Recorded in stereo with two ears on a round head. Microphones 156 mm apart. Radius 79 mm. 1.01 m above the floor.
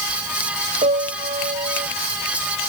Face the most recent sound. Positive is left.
turn(degrees=-35)  # may be behind; listen again after turning